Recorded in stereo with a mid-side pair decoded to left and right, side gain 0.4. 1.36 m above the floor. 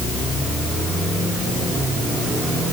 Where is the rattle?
No rattle in this recording.